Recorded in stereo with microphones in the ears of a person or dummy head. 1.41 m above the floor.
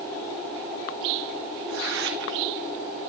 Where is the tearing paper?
70° right (ahead or behind), 2 m.